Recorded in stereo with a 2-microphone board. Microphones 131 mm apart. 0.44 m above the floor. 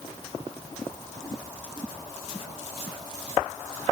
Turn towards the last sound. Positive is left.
No sound to turn to.